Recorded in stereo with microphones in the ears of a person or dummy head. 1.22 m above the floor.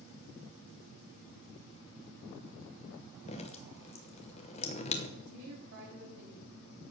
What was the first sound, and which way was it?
Dripping, 35° left (ahead or behind).